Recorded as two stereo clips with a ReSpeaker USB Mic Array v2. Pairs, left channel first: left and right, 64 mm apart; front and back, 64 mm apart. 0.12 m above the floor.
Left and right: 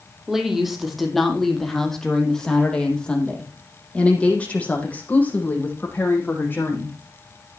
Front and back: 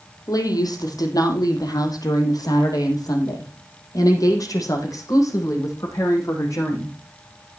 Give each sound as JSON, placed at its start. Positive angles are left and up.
{"t": 0.3, "sound": "a woman speaking", "azimuth_deg": -5, "distance_m": 3.5}